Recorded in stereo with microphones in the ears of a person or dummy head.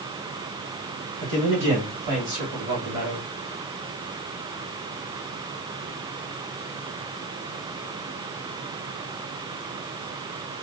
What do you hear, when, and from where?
1.2 s a man speaking: 40° right (ahead or behind), 3 m